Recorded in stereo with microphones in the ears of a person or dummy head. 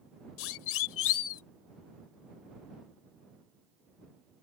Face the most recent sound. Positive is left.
turn(degrees=80)